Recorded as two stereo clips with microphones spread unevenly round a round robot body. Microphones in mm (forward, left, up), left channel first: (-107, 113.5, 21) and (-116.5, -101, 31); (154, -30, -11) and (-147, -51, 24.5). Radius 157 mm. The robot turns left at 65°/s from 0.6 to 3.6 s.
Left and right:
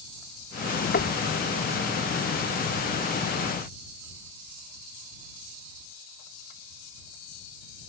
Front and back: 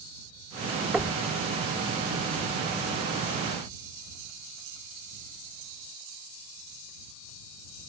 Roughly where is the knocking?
Left.